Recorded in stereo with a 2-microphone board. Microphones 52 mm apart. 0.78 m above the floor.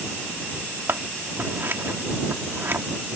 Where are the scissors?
50° right (ahead or behind).